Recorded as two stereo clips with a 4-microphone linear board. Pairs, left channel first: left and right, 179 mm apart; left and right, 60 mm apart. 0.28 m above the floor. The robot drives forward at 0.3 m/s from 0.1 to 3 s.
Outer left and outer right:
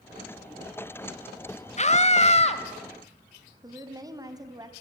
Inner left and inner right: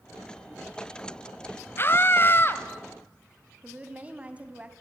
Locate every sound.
1.8 s a scream: 40° left (ahead or behind), 1.2 m; by 2.6 s 35° left (ahead or behind), 1.3 m
3.6 s a woman speaking: 20° right (ahead or behind), 2 m